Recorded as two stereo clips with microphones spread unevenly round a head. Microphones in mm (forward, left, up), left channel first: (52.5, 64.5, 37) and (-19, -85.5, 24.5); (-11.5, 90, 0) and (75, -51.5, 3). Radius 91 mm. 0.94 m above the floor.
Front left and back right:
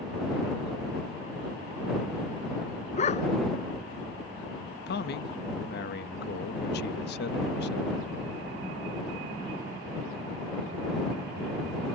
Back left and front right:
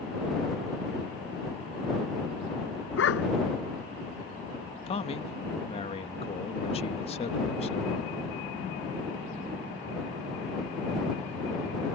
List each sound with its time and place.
3.0 s a dog barking: 120° left
4.9 s a man speaking: 75° left